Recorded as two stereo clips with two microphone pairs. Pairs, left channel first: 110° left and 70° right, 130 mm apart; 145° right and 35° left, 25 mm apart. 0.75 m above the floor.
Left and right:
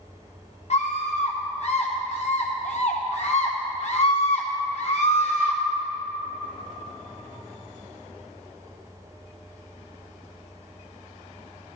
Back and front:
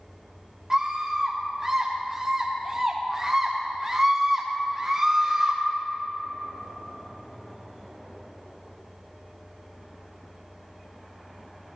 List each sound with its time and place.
0.7 s a scream: 95° left, 0.7 m